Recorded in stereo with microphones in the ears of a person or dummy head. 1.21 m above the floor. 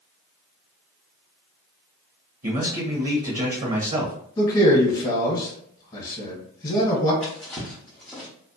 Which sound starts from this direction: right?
A man speaking, at 2.4 s.